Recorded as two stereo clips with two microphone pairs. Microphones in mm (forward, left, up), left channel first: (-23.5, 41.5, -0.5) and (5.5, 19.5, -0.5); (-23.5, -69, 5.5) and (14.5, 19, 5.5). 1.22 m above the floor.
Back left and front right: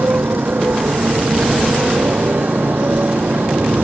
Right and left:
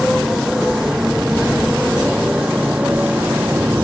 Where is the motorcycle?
20° right; by 3.8 s 5° right.